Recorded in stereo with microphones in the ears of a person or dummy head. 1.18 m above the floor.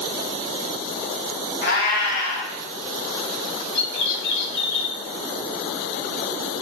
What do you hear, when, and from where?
1.6 s a cat meowing: 60° left (ahead or behind), 1.4 m
3.8 s a bird: 70° left (ahead or behind), 1.1 m